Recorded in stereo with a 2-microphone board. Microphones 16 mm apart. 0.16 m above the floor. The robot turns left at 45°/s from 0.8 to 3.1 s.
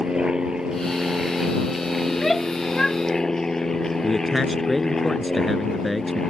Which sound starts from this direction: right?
An aircraft, at 0.0 s.